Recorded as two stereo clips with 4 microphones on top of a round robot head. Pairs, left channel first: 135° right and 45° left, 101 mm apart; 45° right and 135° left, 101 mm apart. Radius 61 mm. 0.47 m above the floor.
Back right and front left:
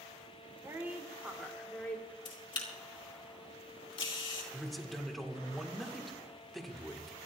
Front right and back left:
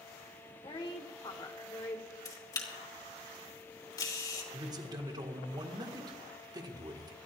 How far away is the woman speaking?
About 2.0 m.